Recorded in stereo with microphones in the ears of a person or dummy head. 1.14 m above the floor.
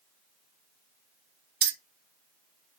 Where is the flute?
No flute in this recording.